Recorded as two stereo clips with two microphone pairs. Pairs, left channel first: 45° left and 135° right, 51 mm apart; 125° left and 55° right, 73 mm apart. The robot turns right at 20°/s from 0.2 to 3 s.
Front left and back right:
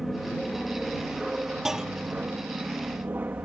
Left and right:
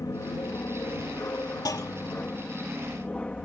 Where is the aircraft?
135° left; by 3.5 s 170° right.